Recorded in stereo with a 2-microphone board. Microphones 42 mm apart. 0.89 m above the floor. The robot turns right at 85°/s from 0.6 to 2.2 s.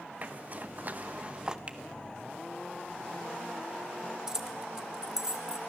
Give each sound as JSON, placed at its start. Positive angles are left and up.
{"t": 0.2, "sound": "a zipper", "side_deg": -40, "distance_m": 1.0}
{"t": 1.7, "sound": "a finger snap", "side_deg": -30, "distance_m": 1.5}
{"t": 4.3, "sound": "keys jangling", "side_deg": -10, "distance_m": 1.4}